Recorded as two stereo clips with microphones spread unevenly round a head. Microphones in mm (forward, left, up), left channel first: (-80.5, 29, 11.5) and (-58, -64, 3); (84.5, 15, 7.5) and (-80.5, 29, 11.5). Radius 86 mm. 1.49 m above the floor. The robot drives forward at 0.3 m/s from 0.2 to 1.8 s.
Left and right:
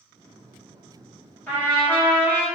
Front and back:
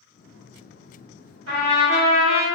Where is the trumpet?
175° left, 1.6 m.